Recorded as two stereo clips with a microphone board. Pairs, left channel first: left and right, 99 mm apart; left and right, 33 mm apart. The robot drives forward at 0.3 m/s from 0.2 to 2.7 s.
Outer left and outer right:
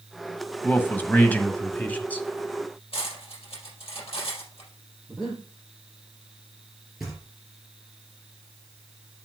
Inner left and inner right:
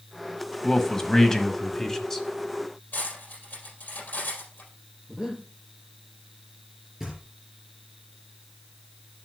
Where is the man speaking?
20° left (ahead or behind), 1.2 m; by 2.3 s 15° left (ahead or behind), 1.4 m.